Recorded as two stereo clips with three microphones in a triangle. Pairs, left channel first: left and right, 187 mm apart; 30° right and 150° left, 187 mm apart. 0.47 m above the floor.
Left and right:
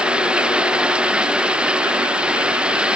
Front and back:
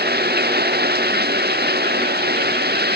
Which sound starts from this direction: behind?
Running water, at 0.0 s.